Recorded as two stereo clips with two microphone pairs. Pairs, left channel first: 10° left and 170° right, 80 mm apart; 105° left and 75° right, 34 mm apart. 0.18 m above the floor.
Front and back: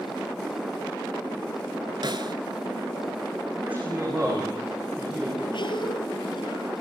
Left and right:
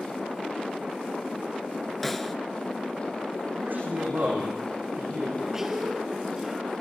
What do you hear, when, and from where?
2.0 s a snare drum: 170° right, 1.3 m
3.6 s a man speaking: 100° right, 9 m
5.5 s a cough: 5° left, 3 m